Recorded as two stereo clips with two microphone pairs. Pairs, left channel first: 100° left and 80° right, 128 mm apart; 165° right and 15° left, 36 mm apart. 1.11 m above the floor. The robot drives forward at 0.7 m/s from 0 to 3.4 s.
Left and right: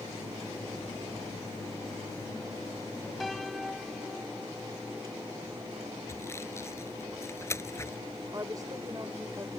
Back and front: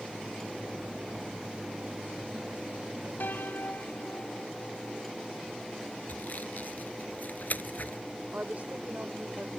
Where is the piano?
170° right.